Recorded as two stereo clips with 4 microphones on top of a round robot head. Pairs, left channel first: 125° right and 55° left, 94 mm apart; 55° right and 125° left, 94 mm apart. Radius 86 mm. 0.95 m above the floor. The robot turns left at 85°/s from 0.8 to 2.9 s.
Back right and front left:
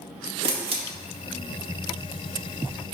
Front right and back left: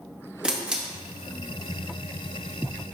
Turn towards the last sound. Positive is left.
turn(degrees=-140)